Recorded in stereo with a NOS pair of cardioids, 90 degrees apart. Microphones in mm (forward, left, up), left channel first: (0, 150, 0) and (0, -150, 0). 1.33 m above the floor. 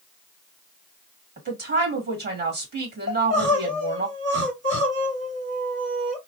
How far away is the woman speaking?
About 2 m.